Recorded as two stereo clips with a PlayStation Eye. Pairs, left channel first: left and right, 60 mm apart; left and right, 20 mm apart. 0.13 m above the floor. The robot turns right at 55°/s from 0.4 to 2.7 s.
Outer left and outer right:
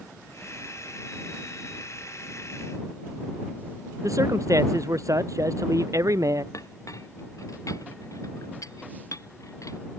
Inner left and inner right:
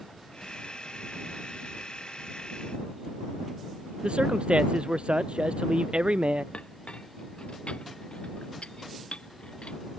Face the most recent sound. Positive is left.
turn(degrees=65)  # may be behind; listen again after turning